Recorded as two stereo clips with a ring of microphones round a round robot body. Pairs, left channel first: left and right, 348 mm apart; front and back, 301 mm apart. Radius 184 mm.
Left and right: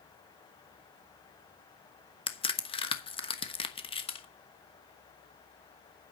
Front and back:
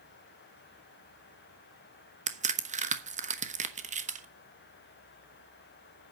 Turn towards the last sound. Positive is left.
turn(degrees=145)